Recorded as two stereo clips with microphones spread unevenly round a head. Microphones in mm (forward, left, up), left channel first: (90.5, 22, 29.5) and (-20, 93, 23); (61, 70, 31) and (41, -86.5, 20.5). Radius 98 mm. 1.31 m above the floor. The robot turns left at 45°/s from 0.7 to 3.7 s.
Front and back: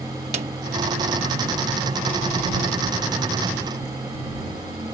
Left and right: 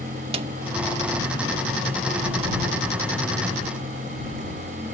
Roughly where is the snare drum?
Behind.